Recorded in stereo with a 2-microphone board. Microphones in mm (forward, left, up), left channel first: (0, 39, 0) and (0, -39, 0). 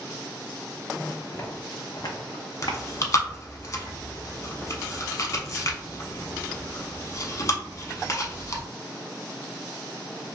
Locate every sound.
1.3 s footsteps: 35° left (ahead or behind), 1.0 m; by 3.4 s 45° left (ahead or behind), 1.0 m
2.6 s chewing: 45° left (ahead or behind), 0.6 m